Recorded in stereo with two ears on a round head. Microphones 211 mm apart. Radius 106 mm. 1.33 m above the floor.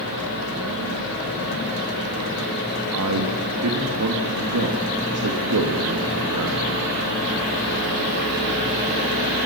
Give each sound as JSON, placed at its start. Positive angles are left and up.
{"t": 2.9, "sound": "a man speaking", "side_deg": -75, "distance_m": 2.0}